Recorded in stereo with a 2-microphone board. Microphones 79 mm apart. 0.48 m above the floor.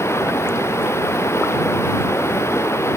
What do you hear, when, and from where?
0.0 s running water: 35° left (ahead or behind)